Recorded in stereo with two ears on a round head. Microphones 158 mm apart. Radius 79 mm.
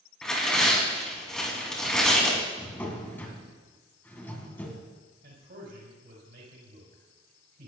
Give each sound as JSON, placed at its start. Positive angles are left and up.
{"t": 0.2, "sound": "tearing paper", "side_deg": 5, "distance_m": 3.0}
{"t": 2.6, "sound": "a drawer", "side_deg": 10, "distance_m": 2.0}
{"t": 5.2, "sound": "a man speaking", "side_deg": -60, "distance_m": 4.5}